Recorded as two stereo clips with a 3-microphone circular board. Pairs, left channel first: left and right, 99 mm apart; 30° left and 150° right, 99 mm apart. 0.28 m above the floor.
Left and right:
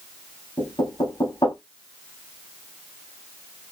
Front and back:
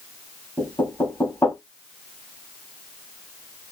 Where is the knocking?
80° left, 1.3 m.